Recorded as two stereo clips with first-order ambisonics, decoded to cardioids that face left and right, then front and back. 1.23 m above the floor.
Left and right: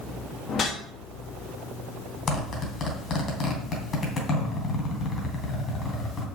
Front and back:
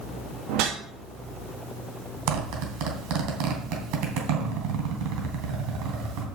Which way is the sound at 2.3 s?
160° left.